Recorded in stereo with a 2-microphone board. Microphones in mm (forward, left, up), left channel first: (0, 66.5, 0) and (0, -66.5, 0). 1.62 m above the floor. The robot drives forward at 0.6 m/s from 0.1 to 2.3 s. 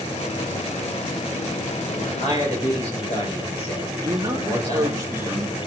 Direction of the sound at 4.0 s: 25° right (ahead or behind).